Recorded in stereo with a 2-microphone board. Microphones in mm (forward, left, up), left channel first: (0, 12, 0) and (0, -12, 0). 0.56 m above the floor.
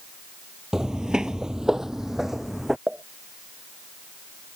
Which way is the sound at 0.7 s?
20° right (ahead or behind).